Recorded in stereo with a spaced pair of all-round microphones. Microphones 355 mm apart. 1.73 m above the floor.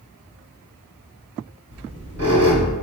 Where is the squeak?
30° left (ahead or behind), 1.6 m.